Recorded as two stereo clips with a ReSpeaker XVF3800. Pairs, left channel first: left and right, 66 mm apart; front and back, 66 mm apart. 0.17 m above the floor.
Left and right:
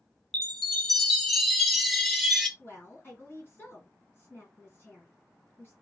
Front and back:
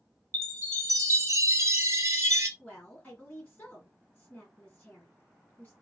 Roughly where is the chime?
Behind.